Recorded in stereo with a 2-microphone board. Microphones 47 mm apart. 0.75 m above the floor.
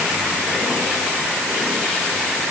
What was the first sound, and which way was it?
Only background noise.